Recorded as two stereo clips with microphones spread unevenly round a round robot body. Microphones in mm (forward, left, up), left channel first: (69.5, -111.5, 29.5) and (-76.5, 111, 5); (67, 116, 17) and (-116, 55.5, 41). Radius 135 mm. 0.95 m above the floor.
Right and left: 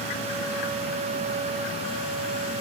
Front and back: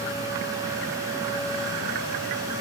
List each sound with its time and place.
Only background noise.